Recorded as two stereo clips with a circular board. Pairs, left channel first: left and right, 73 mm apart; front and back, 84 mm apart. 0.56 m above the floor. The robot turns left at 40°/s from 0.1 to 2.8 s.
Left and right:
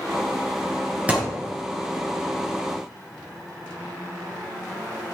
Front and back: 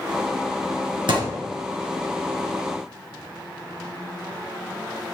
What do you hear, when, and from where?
1.1 s a thud: 160° right, 3 m; by 1.4 s 170° right, 3 m